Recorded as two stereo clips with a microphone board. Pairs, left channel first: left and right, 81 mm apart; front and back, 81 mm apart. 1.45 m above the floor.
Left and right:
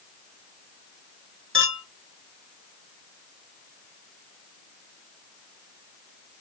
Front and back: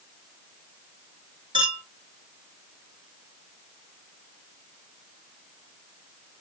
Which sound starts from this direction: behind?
A clink, at 1.5 s.